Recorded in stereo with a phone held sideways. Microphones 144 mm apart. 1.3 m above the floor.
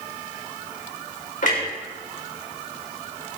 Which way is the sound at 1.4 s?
60° left (ahead or behind).